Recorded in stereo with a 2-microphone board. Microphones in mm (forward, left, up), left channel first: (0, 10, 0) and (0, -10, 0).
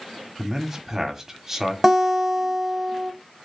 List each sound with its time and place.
0.4 s a man speaking: 20° right (ahead or behind), 0.9 m
1.8 s a guitar: 10° right (ahead or behind), 0.7 m